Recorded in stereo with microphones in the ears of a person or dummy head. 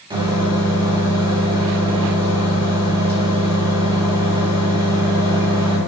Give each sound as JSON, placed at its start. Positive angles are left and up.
{"t": 0.1, "sound": "a microwave", "side_deg": -25, "distance_m": 1.5}